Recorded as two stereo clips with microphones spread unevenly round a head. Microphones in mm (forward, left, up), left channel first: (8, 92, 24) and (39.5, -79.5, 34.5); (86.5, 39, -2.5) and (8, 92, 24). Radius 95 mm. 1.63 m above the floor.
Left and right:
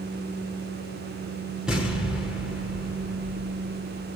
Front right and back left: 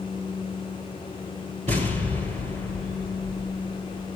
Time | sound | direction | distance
1.7 | an explosion | 165° right | 5 m